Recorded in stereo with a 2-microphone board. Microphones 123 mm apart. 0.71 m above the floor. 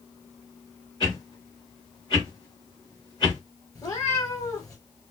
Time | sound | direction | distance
1.0 | a whoosh | 35° left (ahead or behind) | 3.5 m
3.8 | a cat meowing | 30° left (ahead or behind) | 3 m